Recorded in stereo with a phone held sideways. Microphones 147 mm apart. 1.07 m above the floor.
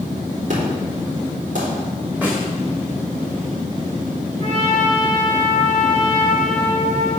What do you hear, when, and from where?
0.5 s an explosion: 60° right (ahead or behind), 3.5 m
2.2 s a snare drum: 10° right (ahead or behind), 3 m
4.4 s a trumpet: 50° right (ahead or behind), 3.5 m